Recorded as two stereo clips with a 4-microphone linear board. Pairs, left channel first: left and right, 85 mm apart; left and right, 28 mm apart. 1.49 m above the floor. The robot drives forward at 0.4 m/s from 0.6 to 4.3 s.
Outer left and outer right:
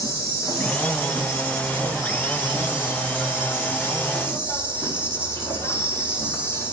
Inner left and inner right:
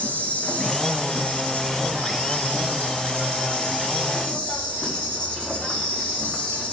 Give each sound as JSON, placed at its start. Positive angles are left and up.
{"t": 0.0, "sound": "an insect", "side_deg": 45, "distance_m": 3.5}